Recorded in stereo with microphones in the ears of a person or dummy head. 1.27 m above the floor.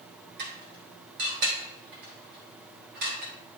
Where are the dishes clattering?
50° right (ahead or behind), 1.5 m.